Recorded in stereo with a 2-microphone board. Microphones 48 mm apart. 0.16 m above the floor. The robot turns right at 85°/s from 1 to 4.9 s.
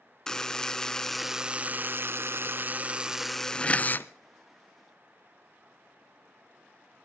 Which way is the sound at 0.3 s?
160° left.